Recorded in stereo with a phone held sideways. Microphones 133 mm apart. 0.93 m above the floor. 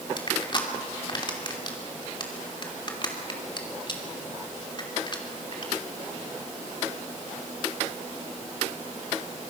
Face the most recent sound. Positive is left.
turn(degrees=35)  # may be behind; listen again after turning